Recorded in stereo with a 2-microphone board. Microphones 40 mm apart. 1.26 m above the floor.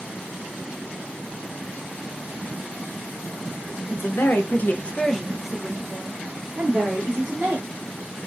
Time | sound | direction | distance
3.9 | a woman speaking | 70° left (ahead or behind) | 0.7 m